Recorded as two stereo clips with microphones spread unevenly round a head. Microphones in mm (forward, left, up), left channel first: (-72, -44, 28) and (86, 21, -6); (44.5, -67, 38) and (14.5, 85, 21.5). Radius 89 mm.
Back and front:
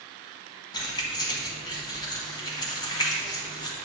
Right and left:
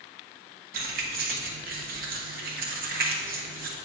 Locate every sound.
0.7 s keys jangling: 145° left, 1.0 m